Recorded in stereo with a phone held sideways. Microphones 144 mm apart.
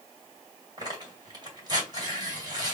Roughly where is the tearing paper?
Right.